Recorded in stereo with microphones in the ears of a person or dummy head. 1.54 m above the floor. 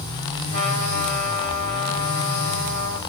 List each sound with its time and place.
0.5 s a trumpet: 55° right (ahead or behind), 1.8 m